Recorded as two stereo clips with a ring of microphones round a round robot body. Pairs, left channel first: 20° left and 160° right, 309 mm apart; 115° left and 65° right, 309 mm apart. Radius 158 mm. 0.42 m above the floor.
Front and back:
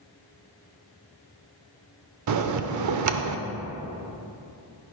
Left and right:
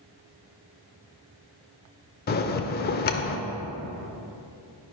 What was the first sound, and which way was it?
A bell, 170° left.